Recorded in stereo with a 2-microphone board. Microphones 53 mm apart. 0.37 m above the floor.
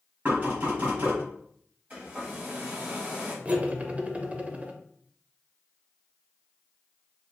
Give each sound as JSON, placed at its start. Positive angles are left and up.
{"t": 0.2, "sound": "knocking", "side_deg": -35, "distance_m": 1.9}
{"t": 1.9, "sound": "a hair dryer", "side_deg": -30, "distance_m": 1.5}
{"t": 3.5, "sound": "cutlery clinking", "side_deg": -25, "distance_m": 0.5}